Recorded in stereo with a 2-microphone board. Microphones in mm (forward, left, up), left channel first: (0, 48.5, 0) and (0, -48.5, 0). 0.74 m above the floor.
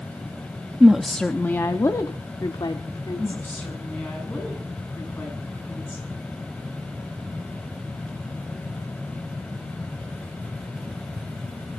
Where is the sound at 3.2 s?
15° left (ahead or behind), 7.5 m.